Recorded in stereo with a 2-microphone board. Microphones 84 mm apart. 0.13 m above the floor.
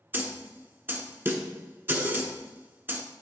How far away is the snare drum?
About 1.0 m.